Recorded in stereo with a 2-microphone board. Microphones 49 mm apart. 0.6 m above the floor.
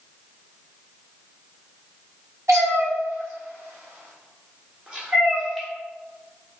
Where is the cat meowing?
70° right (ahead or behind), 1.4 m; by 5.7 s centre (ahead or behind), 1.0 m.